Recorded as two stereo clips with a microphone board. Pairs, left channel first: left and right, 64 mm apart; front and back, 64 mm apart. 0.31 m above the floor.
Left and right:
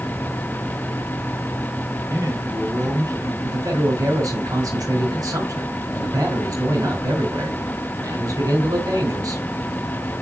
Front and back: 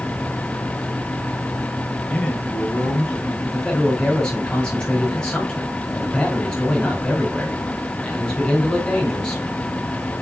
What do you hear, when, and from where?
2.1 s a man speaking: 75° right, 4.5 m
3.4 s a man speaking: 75° right, 4 m